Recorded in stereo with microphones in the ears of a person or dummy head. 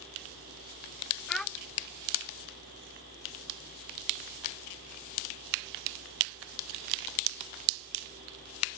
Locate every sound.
1.3 s a child speaking: 5° left (ahead or behind)